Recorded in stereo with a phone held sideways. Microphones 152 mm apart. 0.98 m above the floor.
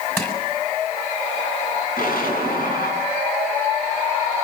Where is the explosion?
70° left (ahead or behind), 8 m.